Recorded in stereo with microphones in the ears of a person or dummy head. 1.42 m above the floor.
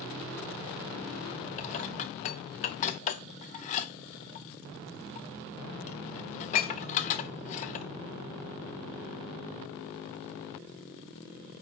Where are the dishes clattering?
40° left (ahead or behind), 0.7 m.